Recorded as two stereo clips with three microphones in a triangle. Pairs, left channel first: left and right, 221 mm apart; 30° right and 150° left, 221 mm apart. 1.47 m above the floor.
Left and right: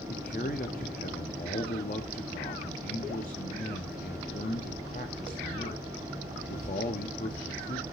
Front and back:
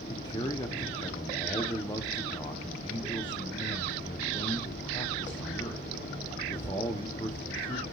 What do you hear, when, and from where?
0.1 s a man speaking: 40° left, 1.0 m